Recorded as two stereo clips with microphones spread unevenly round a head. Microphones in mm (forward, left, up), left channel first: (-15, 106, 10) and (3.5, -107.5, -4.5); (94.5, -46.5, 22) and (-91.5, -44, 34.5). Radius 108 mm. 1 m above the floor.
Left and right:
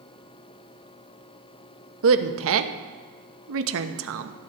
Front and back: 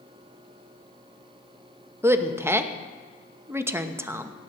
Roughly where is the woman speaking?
Right.